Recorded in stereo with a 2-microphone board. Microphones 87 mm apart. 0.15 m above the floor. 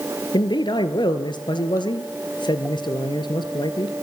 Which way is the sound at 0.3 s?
60° left (ahead or behind).